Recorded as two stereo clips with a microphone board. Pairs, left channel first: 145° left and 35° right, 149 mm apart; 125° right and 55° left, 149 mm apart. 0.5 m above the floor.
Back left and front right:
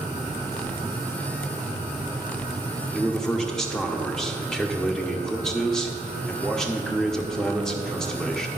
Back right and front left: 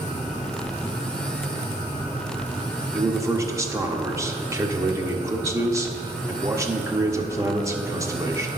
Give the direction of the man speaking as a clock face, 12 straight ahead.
10 o'clock.